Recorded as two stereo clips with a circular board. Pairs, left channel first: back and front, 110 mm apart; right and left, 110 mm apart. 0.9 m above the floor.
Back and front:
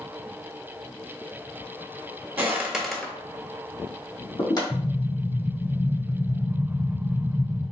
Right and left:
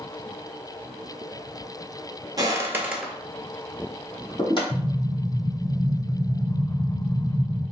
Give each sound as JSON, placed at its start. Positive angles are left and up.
{"t": 2.4, "sound": "footsteps", "azimuth_deg": 60, "distance_m": 1.1}
{"t": 4.7, "sound": "an explosion", "azimuth_deg": -150, "distance_m": 1.6}